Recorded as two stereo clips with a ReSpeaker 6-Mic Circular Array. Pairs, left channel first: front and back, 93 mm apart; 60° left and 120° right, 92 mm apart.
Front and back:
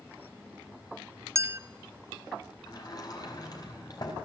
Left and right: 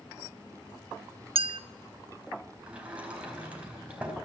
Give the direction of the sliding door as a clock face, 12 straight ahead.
1 o'clock.